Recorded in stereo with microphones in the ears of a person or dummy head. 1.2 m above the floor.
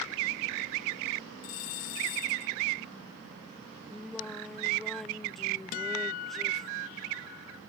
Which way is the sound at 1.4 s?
55° left (ahead or behind).